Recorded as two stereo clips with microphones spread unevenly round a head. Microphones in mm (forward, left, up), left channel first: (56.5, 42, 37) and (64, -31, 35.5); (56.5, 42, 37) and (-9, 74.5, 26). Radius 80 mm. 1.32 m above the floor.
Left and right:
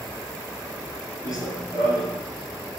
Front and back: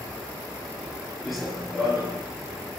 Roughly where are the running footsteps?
Ahead left.